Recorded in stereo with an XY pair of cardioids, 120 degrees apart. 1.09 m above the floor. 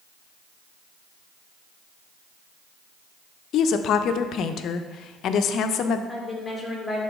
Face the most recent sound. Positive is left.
turn(degrees=10)